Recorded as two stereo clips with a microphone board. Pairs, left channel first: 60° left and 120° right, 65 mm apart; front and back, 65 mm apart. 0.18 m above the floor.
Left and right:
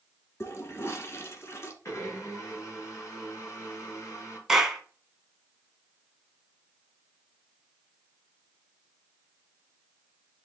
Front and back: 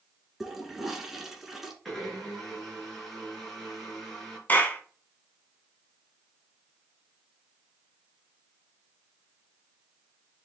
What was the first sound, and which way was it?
A toilet flushing, 95° left.